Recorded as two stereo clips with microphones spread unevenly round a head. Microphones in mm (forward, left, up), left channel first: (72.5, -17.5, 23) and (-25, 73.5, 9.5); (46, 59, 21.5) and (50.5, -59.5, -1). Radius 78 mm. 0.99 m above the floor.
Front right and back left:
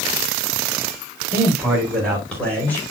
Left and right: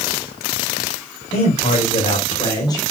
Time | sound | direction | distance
1.3 | a man speaking | 50° left | 4 m